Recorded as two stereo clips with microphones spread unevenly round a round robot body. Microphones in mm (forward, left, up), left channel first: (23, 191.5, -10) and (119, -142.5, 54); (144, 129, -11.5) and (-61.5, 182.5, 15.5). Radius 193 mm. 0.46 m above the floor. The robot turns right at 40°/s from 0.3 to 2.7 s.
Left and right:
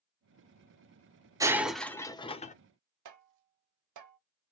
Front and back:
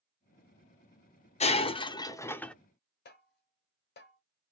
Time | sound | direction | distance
1.4 | breaking glass | 15° left | 0.6 m
3.0 | tapping | 40° right | 0.9 m